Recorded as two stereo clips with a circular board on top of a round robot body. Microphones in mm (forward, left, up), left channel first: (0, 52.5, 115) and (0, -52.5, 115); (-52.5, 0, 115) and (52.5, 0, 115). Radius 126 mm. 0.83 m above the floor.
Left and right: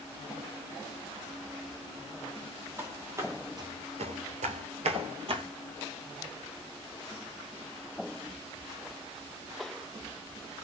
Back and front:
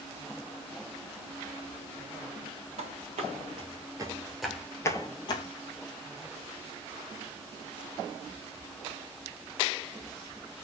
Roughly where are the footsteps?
Ahead.